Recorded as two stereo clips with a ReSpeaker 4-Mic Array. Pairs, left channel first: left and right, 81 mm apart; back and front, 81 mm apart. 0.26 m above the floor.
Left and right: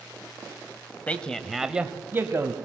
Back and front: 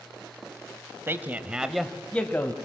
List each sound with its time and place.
1.1 s a man speaking: 30° left, 1.3 m; by 2.5 s 130° right, 1.6 m